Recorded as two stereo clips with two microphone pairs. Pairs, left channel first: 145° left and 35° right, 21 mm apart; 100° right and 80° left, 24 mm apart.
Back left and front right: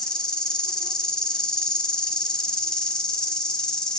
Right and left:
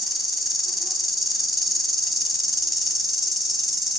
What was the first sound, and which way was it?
An insect, 165° left.